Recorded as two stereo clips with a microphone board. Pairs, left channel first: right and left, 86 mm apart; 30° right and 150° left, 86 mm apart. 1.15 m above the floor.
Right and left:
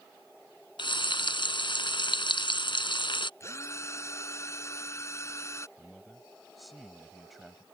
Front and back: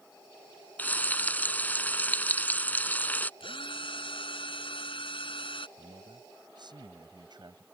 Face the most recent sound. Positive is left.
turn(degrees=180)